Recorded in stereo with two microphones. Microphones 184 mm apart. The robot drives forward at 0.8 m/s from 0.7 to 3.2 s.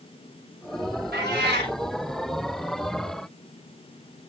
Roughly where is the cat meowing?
Right.